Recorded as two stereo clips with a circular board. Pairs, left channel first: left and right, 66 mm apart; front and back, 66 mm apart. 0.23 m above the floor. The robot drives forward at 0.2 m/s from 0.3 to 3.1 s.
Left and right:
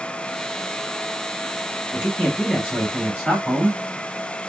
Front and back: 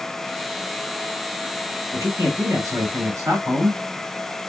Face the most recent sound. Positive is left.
turn(degrees=-170)